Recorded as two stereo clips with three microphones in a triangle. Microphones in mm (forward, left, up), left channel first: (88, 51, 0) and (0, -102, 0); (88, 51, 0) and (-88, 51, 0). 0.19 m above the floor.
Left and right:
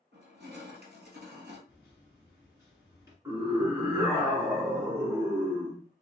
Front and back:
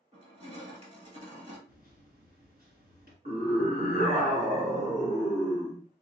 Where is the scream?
170° left, 1.8 m.